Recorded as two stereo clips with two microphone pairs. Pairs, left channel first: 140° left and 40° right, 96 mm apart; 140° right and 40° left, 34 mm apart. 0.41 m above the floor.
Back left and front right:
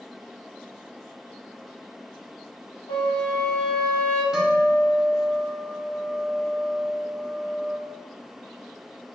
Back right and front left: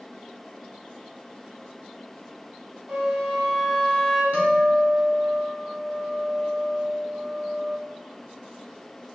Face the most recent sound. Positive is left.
turn(degrees=40)